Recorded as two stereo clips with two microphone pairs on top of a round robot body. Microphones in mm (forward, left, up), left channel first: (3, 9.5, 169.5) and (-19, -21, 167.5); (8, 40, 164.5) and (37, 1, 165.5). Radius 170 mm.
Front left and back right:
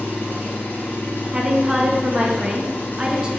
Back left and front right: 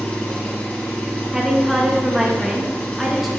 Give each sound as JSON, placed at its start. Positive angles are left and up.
{"t": 0.0, "sound": "an engine running", "azimuth_deg": 65, "distance_m": 1.7}
{"t": 1.3, "sound": "a woman speaking", "azimuth_deg": -145, "distance_m": 0.9}